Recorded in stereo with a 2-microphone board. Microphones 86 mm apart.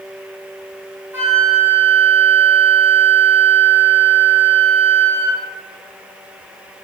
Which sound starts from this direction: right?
A flute, at 1.1 s.